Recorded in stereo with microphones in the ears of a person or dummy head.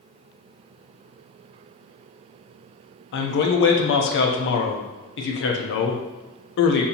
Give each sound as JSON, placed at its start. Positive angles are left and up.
{"t": 3.1, "sound": "a man speaking", "side_deg": 60, "distance_m": 0.6}